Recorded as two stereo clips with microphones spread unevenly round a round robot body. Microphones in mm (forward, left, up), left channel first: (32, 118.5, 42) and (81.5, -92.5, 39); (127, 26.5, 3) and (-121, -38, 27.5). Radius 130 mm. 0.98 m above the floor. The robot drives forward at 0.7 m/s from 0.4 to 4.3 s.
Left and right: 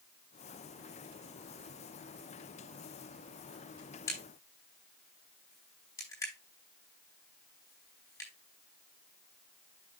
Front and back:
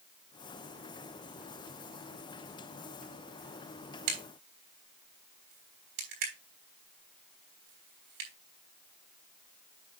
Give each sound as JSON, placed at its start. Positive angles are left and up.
{"t": 4.1, "sound": "a crack", "azimuth_deg": 180, "distance_m": 5.0}